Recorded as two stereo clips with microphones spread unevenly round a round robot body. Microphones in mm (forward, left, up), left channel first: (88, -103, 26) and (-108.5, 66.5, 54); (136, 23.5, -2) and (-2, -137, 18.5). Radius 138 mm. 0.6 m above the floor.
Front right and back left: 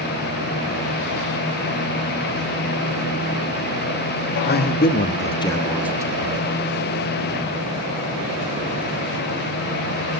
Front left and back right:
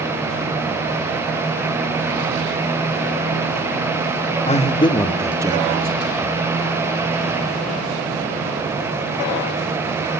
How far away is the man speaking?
About 1.7 m.